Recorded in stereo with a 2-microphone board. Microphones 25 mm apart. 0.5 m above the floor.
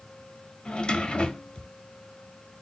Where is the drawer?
45° left (ahead or behind), 0.7 m.